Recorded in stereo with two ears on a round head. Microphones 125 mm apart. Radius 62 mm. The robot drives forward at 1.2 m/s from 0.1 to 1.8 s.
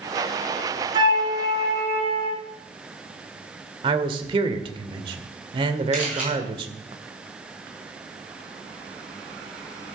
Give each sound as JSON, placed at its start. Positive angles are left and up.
{"t": 0.9, "sound": "a flute", "side_deg": -35, "distance_m": 3.5}
{"t": 3.8, "sound": "a man speaking", "side_deg": -35, "distance_m": 1.7}
{"t": 5.9, "sound": "a camera shutter", "side_deg": -10, "distance_m": 6.0}